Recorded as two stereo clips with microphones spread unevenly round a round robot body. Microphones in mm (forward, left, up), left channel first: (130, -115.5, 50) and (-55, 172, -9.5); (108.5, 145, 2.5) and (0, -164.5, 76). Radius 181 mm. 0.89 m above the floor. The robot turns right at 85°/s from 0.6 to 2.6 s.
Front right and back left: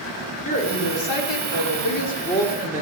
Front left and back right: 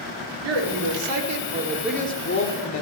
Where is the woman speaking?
130° right, 2.0 m; by 2.8 s 40° left, 2.0 m.